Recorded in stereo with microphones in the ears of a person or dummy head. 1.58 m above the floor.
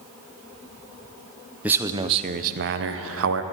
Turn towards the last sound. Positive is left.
turn(degrees=-85)